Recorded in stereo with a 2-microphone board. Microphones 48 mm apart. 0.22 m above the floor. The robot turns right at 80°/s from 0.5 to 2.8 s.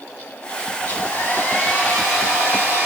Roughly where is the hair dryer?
Left.